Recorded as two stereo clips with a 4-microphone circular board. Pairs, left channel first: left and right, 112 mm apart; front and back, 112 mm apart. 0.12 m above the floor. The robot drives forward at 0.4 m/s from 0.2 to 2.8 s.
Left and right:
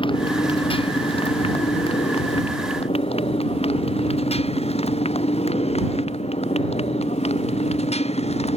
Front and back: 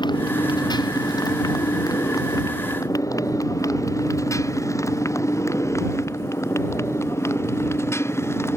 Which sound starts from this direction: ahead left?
A motorcycle, at 0.0 s.